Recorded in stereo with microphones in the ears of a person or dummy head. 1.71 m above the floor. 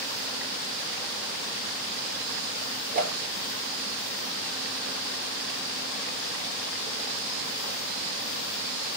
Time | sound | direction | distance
2.9 | a whoosh | 50° right (ahead or behind) | 1.2 m